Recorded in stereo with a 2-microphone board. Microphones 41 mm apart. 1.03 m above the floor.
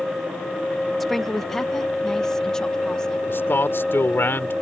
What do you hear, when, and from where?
1.0 s a woman speaking: 5° left (ahead or behind); by 3.2 s 15° left (ahead or behind)
3.3 s a man speaking: 65° left (ahead or behind)